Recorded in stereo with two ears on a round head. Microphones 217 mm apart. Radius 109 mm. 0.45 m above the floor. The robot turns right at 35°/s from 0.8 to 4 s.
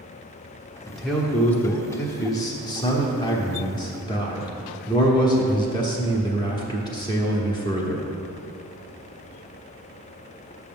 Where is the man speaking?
Centre (ahead or behind), 1.0 m; by 8.1 s 15° left (ahead or behind), 1.0 m.